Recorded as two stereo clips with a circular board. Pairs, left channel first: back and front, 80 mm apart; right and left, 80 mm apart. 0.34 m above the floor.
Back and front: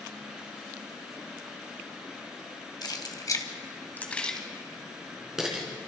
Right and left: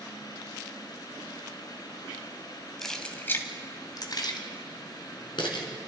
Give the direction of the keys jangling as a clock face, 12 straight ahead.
6 o'clock.